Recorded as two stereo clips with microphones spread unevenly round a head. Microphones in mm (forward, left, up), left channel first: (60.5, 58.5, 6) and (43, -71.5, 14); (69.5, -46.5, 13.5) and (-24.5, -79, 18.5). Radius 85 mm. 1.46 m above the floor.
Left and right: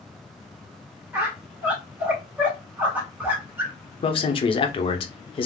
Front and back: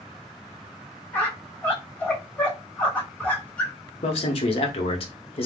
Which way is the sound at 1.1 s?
45° right.